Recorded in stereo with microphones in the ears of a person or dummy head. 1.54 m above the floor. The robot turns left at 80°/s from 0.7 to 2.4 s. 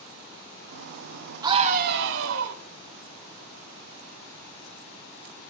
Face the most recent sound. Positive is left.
turn(degrees=-100)